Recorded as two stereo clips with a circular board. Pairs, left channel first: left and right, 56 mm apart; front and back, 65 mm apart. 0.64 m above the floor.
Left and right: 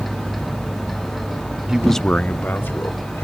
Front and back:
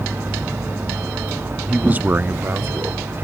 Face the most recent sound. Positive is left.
turn(degrees=130)